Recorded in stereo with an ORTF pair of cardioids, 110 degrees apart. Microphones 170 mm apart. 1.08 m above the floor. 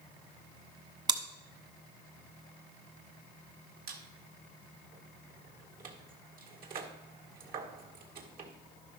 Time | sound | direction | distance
1.1 | chewing | 25° right | 1.3 m
3.9 | a squeak | 55° right | 1.8 m